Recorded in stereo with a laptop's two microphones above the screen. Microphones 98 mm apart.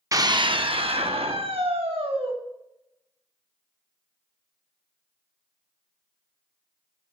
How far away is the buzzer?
I don't hear a buzzer.